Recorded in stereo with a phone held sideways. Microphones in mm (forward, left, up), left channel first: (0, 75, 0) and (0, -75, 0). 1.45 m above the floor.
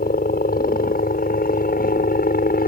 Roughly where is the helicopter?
Left.